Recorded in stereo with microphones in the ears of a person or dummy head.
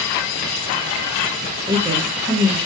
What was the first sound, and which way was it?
A woman speaking, 15° right (ahead or behind).